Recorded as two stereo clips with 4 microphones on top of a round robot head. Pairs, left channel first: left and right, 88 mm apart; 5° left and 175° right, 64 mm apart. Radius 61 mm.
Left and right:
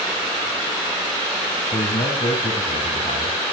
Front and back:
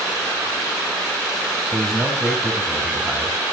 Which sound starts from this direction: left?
A man speaking, at 1.7 s.